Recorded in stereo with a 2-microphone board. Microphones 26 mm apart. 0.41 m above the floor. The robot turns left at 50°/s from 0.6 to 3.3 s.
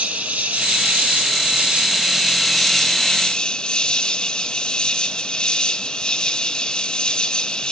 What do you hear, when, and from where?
0.0 s an insect: 80° right, 1.5 m; by 7.7 s 145° left, 1.5 m